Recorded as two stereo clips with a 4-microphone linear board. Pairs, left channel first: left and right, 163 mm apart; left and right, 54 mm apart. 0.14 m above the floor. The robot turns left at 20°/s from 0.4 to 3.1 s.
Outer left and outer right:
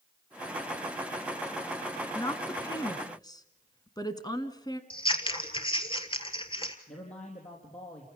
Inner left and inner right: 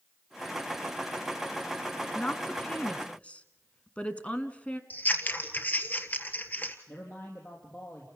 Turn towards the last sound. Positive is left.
turn(degrees=45)  # may be behind; listen again after turning